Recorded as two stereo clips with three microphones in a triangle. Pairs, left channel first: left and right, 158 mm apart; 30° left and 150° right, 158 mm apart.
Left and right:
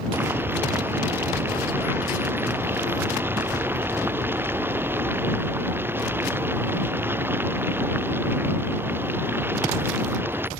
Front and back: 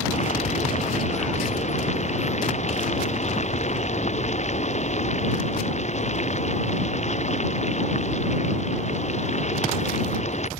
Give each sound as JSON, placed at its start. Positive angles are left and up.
{"t": 0.1, "sound": "boiling", "azimuth_deg": -15}